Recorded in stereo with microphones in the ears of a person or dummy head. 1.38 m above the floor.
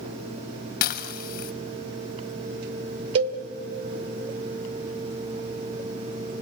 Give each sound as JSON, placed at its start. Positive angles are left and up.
{"t": 0.8, "sound": "dishes clattering", "side_deg": 55, "distance_m": 1.0}
{"t": 3.1, "sound": "a cowbell", "side_deg": -35, "distance_m": 1.3}